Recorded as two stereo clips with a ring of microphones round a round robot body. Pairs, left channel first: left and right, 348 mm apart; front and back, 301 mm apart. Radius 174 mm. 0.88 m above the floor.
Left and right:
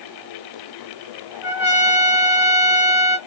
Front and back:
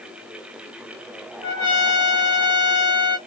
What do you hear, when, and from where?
1.4 s a trumpet: 5° right, 2 m